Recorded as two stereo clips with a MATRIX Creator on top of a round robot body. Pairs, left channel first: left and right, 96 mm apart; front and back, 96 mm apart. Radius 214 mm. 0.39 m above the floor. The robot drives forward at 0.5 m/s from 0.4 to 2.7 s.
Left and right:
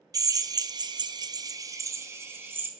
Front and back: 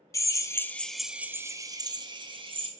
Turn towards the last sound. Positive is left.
turn(degrees=-160)